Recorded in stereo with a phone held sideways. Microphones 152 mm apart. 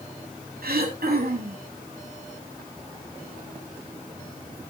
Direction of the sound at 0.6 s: 85° right.